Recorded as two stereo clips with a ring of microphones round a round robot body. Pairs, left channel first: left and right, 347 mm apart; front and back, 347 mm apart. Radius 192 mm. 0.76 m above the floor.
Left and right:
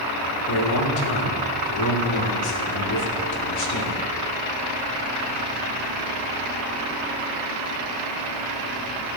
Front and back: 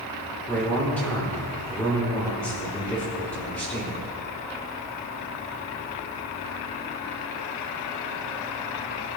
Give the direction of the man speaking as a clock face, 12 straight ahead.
9 o'clock.